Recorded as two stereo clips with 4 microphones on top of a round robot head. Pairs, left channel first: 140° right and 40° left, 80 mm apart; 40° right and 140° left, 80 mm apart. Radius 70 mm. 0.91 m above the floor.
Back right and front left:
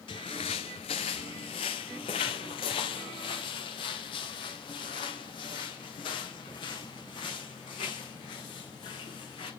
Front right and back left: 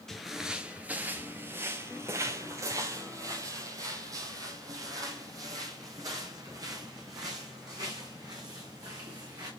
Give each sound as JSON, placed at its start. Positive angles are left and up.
{"t": 0.1, "sound": "footsteps", "azimuth_deg": -125, "distance_m": 1.0}